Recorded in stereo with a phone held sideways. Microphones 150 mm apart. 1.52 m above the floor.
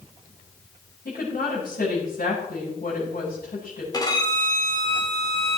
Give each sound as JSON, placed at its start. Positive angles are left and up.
{"t": 1.1, "sound": "a woman speaking", "side_deg": 85, "distance_m": 7.5}
{"t": 3.9, "sound": "a violin", "side_deg": 25, "distance_m": 3.5}